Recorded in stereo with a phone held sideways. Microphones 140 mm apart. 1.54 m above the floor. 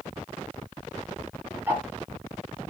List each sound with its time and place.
1.7 s ticking: 15° right (ahead or behind), 1.1 m